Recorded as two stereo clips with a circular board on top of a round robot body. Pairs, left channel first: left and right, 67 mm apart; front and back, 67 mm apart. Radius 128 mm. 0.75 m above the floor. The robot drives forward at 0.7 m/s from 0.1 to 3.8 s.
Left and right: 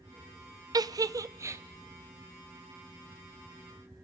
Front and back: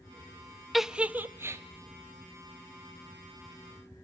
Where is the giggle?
90° right, 0.7 m; by 1.6 s 135° right, 1.0 m.